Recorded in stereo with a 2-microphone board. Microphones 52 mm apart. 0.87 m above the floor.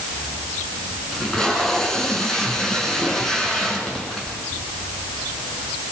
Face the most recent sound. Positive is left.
turn(degrees=10)  # may be behind; listen again after turning